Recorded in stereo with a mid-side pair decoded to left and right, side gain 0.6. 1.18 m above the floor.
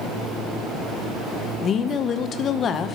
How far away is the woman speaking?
About 0.8 m.